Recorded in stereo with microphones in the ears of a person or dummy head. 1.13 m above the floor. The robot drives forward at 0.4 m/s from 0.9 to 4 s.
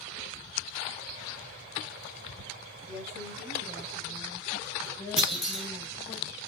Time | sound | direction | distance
2.9 | a woman speaking | centre (ahead or behind) | 7 m
5.2 | a clunk | 10° right (ahead or behind) | 2 m